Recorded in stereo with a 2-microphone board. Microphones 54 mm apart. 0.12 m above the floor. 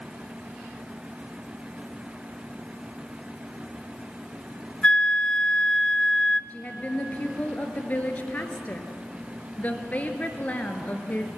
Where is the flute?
20° left (ahead or behind), 0.5 m.